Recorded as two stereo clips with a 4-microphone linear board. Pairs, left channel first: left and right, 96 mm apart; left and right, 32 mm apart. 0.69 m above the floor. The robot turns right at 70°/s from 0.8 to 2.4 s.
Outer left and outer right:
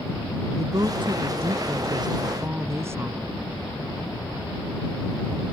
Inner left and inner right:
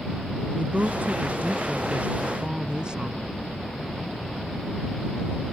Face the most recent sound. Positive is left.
turn(degrees=-25)